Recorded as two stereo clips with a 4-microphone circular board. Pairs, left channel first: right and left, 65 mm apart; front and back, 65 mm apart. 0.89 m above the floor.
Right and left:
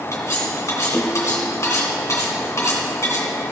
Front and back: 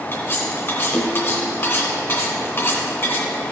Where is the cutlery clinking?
50° right, 2 m.